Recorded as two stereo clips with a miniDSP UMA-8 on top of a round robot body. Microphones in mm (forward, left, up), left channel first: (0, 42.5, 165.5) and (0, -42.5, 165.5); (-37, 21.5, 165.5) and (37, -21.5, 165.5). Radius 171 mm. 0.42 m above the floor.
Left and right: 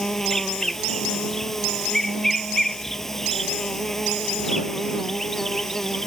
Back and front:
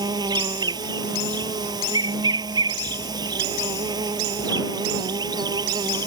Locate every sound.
0.0 s an insect: 5° left